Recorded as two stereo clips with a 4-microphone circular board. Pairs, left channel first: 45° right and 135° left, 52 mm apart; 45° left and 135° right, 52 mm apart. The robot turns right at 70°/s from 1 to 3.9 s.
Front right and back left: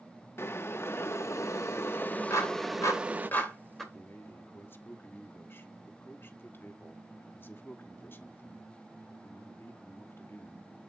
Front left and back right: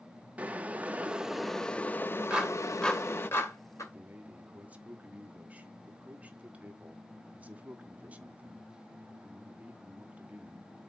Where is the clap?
65° right, 2.5 m; by 3.8 s 45° left, 2.5 m.